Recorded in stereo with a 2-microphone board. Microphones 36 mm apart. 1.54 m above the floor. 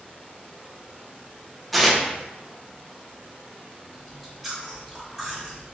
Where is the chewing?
Centre (ahead or behind), 1.3 m.